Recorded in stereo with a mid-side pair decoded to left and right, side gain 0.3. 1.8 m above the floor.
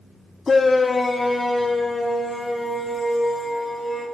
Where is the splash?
No splash in this recording.